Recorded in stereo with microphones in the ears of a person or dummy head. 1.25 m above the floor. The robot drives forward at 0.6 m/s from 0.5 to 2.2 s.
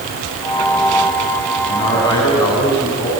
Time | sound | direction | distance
1.7 | a man speaking | 25° left (ahead or behind) | 8 m